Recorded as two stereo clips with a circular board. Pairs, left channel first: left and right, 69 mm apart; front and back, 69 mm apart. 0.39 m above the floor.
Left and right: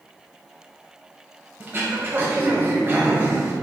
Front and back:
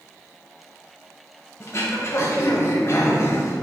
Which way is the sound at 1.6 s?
35° right.